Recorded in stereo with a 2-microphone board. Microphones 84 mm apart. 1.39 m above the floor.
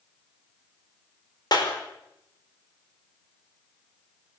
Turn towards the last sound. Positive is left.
turn(degrees=60)  # may be behind; listen again after turning